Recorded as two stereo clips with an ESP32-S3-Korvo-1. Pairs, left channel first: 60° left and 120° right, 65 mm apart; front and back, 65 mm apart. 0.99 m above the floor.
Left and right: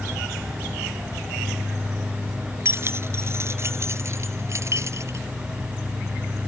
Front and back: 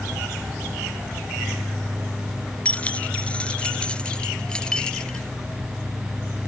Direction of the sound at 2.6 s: 70° right.